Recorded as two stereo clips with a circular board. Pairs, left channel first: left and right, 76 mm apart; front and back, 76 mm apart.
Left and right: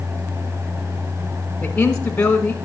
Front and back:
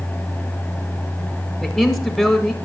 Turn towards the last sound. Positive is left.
turn(degrees=65)